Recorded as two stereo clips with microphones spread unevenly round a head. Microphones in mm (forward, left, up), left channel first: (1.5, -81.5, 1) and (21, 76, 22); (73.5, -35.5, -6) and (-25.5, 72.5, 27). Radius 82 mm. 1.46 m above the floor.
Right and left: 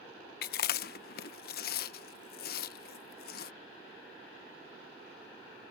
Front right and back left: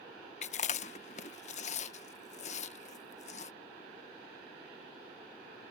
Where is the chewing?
95° right.